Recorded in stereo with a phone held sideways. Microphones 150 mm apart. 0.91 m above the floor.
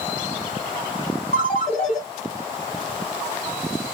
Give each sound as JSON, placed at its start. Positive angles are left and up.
{"t": 1.3, "sound": "a ringtone", "side_deg": 55, "distance_m": 4.0}